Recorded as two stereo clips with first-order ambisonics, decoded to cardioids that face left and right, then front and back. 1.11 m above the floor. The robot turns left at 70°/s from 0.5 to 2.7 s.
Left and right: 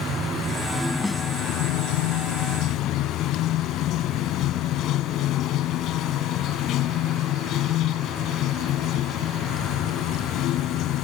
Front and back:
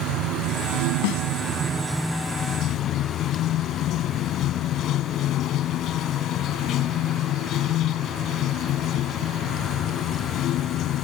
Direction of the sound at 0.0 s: 160° right.